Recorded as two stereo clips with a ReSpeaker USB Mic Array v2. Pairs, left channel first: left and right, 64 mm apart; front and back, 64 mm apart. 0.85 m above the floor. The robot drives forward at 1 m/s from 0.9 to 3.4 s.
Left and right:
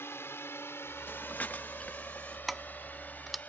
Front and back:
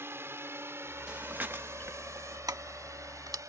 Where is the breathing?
115° left; by 2.4 s 160° left.